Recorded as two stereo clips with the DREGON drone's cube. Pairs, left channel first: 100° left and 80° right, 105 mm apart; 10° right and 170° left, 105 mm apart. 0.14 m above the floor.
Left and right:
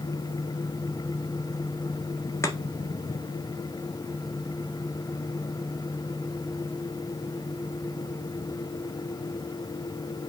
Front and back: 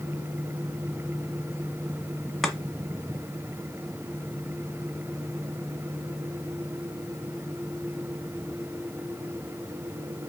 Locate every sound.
2.4 s chopping: 80° left, 1.4 m